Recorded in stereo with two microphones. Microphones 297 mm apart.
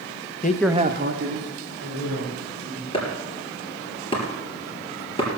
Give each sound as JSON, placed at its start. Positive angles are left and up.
{"t": 0.4, "sound": "a man speaking", "side_deg": 35, "distance_m": 0.6}
{"t": 2.9, "sound": "chopping", "side_deg": 20, "distance_m": 3.0}